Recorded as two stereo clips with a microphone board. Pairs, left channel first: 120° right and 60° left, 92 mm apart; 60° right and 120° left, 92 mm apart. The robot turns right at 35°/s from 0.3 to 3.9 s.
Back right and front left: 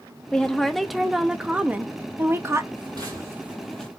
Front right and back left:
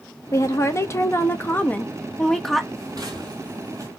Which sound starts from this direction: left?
Footsteps, at 2.8 s.